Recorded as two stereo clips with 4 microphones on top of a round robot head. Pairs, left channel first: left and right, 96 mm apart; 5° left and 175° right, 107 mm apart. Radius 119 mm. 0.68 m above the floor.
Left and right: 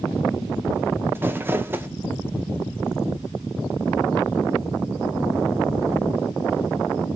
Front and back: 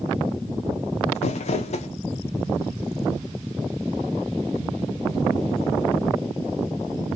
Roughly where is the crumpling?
Ahead.